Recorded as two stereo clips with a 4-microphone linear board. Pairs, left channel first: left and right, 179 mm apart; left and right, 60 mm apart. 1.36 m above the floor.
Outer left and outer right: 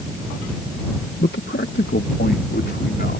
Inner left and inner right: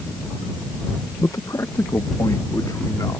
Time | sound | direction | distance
1.2 | a man speaking | 75° left (ahead or behind) | ?